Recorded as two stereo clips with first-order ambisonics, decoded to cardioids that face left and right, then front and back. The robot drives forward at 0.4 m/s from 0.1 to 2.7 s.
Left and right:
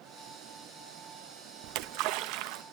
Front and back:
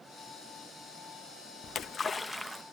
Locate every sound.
1.6 s a splash: 60° right, 0.6 m; by 2.6 s 100° right, 0.6 m